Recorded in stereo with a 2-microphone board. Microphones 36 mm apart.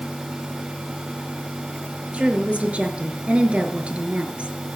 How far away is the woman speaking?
About 3 m.